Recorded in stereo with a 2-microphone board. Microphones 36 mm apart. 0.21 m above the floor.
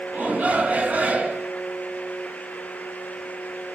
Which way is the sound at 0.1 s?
40° right (ahead or behind).